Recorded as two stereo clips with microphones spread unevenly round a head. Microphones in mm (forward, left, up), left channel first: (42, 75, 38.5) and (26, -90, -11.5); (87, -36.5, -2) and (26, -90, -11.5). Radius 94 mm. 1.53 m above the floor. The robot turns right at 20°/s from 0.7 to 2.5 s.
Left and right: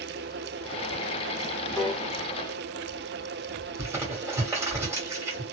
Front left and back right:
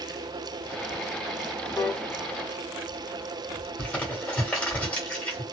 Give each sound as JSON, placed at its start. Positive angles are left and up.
{"t": 1.8, "sound": "a piano", "azimuth_deg": 25, "distance_m": 1.0}
{"t": 3.8, "sound": "crumpling", "azimuth_deg": -5, "distance_m": 1.5}